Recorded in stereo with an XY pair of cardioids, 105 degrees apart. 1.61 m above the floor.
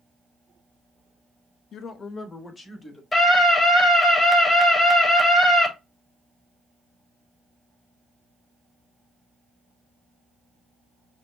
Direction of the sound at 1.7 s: 65° left.